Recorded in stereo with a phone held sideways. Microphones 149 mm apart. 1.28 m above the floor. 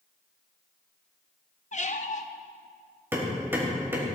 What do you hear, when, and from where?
1.7 s a squeak: 55° left (ahead or behind), 0.6 m
3.1 s hammering: 15° right (ahead or behind), 3 m